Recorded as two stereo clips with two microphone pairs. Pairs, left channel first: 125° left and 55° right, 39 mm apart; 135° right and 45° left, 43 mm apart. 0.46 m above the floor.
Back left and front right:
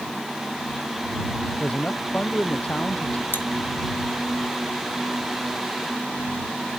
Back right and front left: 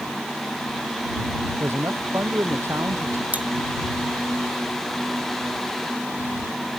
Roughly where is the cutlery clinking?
Left.